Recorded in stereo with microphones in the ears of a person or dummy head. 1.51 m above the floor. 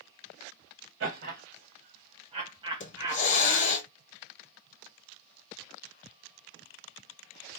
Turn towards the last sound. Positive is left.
turn(degrees=50)  # may be behind; listen again after turning